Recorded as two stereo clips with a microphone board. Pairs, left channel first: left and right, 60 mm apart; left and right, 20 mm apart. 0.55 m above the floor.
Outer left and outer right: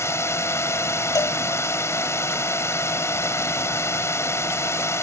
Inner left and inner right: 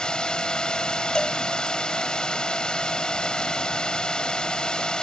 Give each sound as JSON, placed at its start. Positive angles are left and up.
{"t": 0.0, "sound": "a drone", "side_deg": 50}
{"t": 1.1, "sound": "a cowbell", "side_deg": 75}